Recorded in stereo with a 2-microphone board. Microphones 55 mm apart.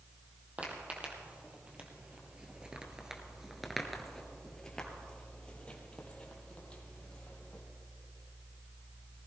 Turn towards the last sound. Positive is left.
turn(degrees=25)  # may be behind; listen again after turning